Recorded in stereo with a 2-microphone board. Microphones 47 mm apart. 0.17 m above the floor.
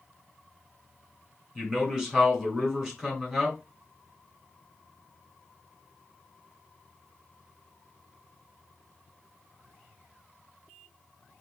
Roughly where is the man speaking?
Centre.